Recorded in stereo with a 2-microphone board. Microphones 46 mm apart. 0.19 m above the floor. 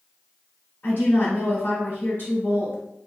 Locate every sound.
0.8 s a woman speaking: 45° left (ahead or behind), 1.4 m